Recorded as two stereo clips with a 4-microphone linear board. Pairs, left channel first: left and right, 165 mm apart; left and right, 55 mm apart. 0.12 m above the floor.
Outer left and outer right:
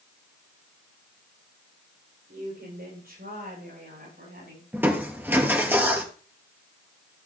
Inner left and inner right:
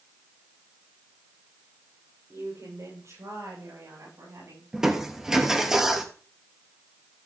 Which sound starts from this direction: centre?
Crushing, at 4.7 s.